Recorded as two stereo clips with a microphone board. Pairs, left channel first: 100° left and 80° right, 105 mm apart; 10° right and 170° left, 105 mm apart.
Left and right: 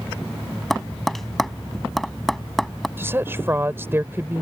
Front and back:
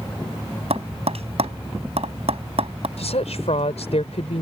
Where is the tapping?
170° right.